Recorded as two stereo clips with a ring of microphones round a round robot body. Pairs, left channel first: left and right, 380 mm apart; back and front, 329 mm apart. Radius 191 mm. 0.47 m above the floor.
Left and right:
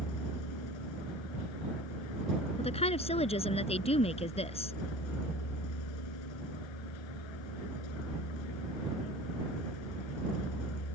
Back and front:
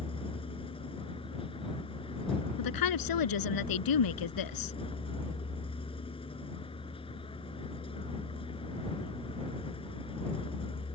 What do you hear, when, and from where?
0.0 s a vehicle: 105° left
2.6 s a woman speaking: 165° left